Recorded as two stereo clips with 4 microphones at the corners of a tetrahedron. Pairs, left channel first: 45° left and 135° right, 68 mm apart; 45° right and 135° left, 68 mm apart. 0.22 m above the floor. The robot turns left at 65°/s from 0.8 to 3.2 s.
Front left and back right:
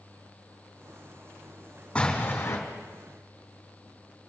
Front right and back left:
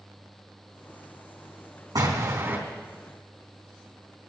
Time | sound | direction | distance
1.9 | an explosion | 120° left | 4 m